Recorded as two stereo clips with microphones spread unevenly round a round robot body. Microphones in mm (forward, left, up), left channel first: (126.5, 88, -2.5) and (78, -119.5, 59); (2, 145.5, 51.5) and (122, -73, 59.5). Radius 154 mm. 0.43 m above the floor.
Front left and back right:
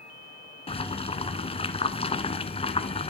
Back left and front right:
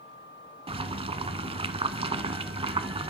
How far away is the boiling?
About 0.9 m.